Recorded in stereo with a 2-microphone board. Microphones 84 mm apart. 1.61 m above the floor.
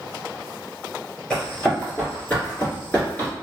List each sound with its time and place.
1.3 s running footsteps: 10° left (ahead or behind), 1.6 m; by 3.3 s 20° left (ahead or behind), 1.7 m